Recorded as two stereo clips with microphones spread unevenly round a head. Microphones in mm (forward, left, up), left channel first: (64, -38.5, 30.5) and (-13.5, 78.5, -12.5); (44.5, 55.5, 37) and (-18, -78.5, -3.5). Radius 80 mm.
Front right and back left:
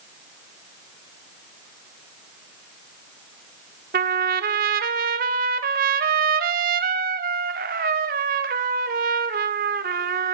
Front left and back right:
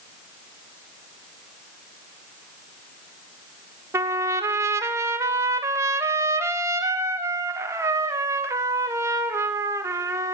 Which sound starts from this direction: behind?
A trumpet, at 3.9 s.